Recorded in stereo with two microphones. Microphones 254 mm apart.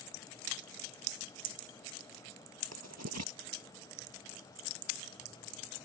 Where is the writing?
85° right.